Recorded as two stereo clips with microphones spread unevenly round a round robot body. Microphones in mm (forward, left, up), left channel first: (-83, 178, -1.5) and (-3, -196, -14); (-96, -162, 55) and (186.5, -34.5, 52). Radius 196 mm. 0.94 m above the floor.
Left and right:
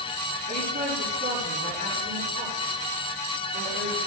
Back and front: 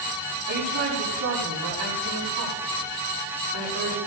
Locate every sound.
0.5 s a woman speaking: 15° right, 8 m